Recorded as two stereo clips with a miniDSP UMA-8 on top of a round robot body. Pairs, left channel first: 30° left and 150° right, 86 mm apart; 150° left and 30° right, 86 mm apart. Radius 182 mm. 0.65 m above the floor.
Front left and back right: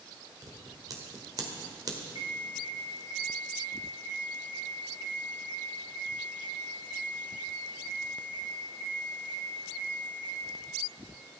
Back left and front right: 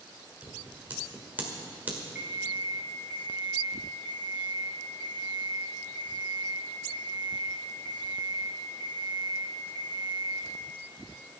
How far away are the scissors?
About 2.0 m.